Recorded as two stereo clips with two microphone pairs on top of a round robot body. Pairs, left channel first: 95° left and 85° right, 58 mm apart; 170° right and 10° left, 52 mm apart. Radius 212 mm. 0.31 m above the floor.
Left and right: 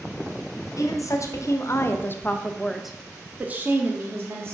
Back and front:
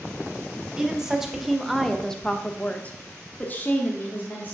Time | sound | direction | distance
0.8 | a woman speaking | 90° left | 1.6 m